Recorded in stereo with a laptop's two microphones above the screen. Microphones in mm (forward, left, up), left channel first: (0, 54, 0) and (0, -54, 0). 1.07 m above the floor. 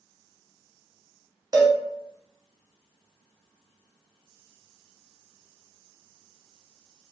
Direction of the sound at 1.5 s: 35° right (ahead or behind).